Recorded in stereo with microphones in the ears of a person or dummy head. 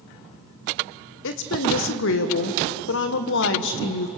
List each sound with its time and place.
1.2 s a woman speaking: 65° left (ahead or behind), 1.6 m